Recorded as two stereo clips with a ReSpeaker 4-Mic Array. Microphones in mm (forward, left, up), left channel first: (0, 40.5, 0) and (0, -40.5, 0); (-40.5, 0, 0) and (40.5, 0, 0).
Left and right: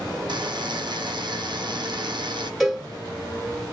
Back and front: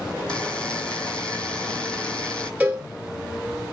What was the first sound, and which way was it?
A buzzer, 105° right.